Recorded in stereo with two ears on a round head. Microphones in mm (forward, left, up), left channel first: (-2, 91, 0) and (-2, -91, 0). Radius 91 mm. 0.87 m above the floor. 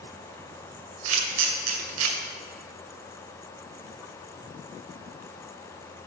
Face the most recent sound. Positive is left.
turn(degrees=-80)